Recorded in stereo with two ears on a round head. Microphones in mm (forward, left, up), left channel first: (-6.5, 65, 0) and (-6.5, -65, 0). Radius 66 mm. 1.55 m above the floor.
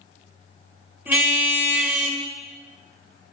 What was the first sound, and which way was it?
A car horn, 10° right (ahead or behind).